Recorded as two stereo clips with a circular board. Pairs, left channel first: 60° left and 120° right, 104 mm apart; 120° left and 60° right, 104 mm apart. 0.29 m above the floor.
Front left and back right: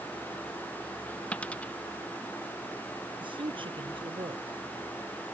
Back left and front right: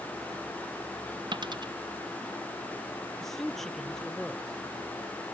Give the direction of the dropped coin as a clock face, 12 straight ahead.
1 o'clock.